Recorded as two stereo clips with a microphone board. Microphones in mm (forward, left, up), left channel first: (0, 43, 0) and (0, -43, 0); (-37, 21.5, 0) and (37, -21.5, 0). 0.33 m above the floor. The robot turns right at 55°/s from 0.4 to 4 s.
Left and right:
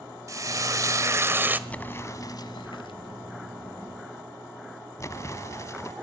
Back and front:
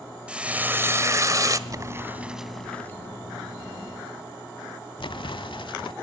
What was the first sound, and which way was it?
Frying, 100° right.